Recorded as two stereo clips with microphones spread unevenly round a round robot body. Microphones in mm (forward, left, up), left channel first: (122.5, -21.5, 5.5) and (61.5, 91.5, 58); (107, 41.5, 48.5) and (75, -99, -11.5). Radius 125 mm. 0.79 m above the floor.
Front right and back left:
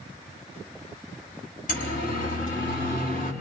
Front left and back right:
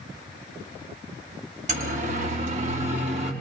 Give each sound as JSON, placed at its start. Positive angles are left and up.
{"t": 1.7, "sound": "a siren", "azimuth_deg": -70, "distance_m": 6.0}